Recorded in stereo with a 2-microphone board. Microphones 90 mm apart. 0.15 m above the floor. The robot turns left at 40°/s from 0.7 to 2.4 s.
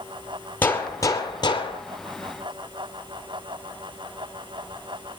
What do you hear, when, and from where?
0.6 s a gunshot: 160° left, 2 m; by 1.8 s 115° left, 2 m